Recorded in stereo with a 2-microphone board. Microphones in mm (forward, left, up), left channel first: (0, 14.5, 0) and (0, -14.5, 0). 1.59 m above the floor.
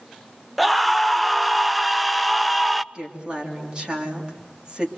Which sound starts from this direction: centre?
A scream, at 0.6 s.